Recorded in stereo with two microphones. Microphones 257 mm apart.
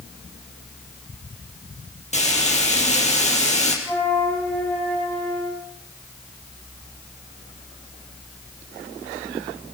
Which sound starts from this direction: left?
Frying, at 2.1 s.